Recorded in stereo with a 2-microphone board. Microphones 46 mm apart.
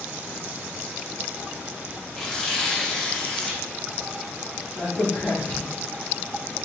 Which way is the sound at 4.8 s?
50° left (ahead or behind).